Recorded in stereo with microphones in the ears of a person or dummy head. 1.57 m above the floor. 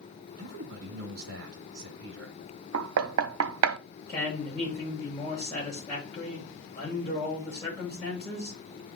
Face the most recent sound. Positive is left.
turn(degrees=10)  # may be behind; listen again after turning